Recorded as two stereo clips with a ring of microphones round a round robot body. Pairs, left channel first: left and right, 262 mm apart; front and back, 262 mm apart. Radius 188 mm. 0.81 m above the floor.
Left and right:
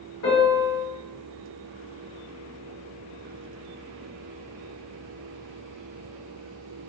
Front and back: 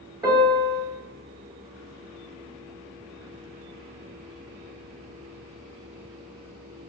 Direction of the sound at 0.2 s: 110° left.